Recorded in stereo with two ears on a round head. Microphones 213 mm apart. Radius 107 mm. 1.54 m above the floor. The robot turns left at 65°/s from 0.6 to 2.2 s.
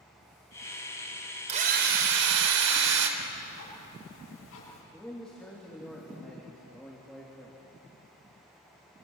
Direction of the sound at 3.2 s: 65° left (ahead or behind).